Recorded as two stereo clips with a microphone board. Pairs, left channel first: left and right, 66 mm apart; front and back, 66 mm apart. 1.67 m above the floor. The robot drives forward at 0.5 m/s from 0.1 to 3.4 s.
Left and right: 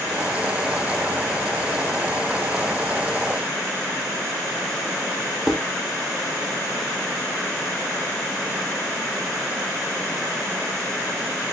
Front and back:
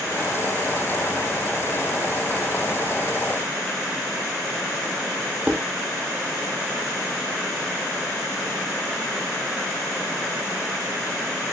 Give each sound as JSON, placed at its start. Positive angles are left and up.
{"t": 5.5, "sound": "dishes clattering", "azimuth_deg": -170, "distance_m": 0.9}